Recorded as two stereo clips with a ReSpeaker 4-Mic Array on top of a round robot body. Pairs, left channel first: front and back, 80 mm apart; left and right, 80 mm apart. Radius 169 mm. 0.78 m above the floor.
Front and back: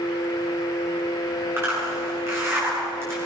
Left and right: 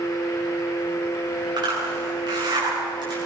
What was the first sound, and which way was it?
A zipper, 120° right.